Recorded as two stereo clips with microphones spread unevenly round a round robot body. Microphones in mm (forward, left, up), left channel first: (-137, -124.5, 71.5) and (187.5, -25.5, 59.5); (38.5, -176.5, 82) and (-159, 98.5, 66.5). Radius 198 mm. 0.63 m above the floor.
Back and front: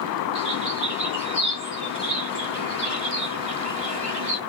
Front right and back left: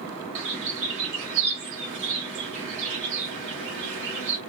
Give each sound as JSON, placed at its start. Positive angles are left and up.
{"t": 0.3, "sound": "a bird", "azimuth_deg": 90, "distance_m": 1.5}